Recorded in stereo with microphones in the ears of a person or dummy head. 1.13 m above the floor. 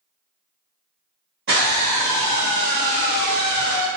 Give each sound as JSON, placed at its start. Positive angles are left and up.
{"t": 1.5, "sound": "a scream", "side_deg": -60, "distance_m": 1.3}